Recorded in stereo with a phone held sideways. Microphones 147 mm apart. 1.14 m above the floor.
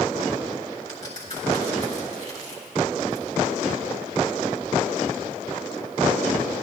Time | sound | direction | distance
0.9 | a crack | 55° left (ahead or behind) | 4 m